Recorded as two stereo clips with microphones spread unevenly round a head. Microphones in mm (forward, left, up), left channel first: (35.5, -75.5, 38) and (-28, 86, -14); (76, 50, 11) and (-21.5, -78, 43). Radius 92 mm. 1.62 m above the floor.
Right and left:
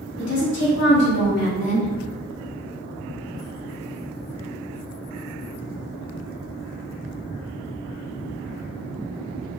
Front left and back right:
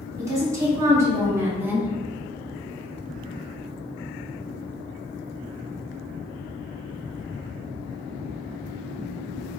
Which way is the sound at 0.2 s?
55° right.